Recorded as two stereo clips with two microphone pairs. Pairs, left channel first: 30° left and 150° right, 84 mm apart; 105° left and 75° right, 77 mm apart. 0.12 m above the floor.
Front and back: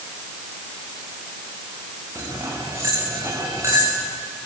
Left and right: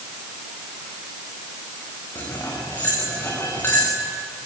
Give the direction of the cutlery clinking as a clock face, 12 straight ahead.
7 o'clock.